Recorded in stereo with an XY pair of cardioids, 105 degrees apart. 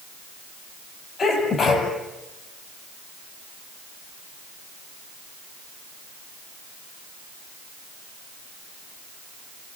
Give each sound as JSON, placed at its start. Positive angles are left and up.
{"t": 1.2, "sound": "a sneeze", "azimuth_deg": 45, "distance_m": 9.0}